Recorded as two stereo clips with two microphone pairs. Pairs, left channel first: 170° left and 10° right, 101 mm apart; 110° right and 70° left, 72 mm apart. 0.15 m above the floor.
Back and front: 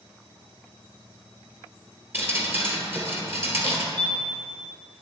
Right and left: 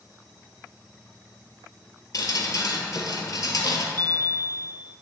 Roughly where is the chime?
Ahead right.